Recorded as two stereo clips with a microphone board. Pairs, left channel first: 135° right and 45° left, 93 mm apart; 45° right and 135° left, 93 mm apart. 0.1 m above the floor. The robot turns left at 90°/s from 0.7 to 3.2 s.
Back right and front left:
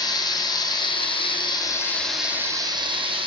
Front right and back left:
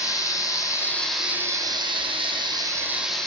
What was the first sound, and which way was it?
Running water, 95° right.